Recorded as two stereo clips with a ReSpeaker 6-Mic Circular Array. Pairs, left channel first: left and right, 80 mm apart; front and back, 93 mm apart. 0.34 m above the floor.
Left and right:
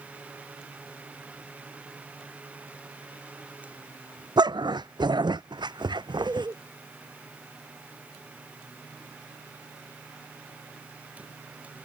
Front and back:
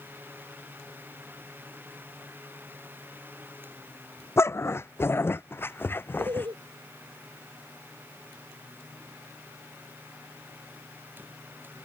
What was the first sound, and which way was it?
A dog barking, 65° right.